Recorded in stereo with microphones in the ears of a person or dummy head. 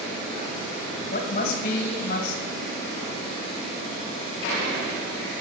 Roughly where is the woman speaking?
Left.